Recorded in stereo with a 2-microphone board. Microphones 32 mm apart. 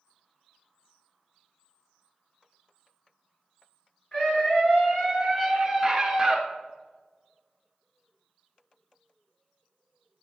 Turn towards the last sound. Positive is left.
turn(degrees=-15)  # may be behind; listen again after turning